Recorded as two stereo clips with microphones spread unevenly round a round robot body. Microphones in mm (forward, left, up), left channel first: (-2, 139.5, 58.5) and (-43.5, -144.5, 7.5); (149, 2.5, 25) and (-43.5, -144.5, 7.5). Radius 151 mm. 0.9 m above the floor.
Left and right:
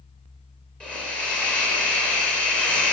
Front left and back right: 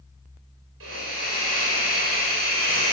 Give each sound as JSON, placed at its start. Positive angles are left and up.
{"t": 0.8, "sound": "a hiss", "azimuth_deg": 170, "distance_m": 4.0}